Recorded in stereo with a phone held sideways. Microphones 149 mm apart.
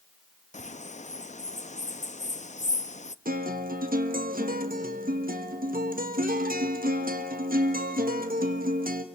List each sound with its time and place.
0.5 s a bird: 50° left (ahead or behind), 0.6 m
3.2 s a guitar: 70° right (ahead or behind), 1.6 m